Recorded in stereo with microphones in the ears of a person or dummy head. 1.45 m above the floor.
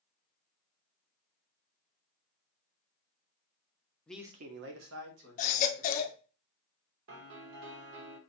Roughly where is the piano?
Right.